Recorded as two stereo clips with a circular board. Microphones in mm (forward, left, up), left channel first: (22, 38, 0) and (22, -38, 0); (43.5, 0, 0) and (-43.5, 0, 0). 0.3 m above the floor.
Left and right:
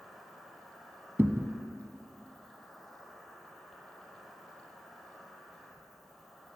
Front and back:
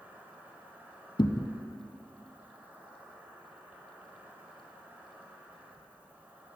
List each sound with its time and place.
0.0 s an insect: 175° left, 1.6 m
1.2 s a thud: 30° right, 0.5 m